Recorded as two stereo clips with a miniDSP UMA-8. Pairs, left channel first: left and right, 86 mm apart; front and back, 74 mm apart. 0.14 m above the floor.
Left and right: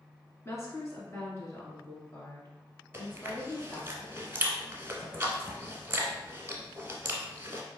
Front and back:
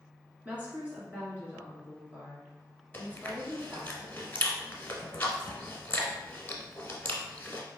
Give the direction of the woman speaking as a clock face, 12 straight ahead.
8 o'clock.